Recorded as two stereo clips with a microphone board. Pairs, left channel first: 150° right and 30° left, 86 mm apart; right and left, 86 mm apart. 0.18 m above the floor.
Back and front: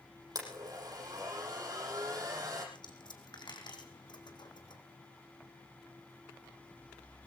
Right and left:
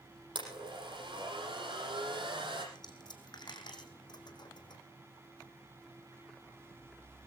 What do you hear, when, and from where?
0.3 s a blender: 75° left, 7 m
2.8 s a dropped coin: 120° right, 2.5 m